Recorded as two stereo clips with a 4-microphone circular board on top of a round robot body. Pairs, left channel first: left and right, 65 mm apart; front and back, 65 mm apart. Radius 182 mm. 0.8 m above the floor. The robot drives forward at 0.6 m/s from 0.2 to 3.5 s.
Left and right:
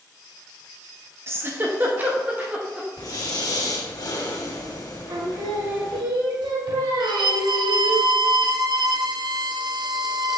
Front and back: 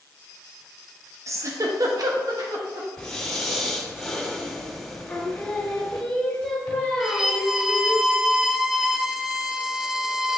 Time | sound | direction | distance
1.3 | a giggle | 140° right | 1.0 m
3.0 | breathing | 80° left | 1.9 m
5.1 | singing | 70° right | 0.9 m
7.0 | a violin | 95° right | 0.5 m